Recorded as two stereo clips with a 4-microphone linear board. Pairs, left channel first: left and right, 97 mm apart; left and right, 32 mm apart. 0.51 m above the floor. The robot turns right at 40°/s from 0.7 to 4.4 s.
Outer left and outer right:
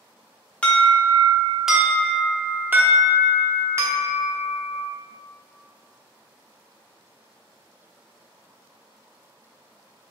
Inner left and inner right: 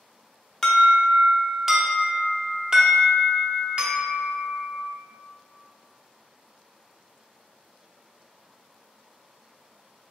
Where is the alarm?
10° left (ahead or behind), 0.8 m; by 4.8 s 25° right (ahead or behind), 0.8 m.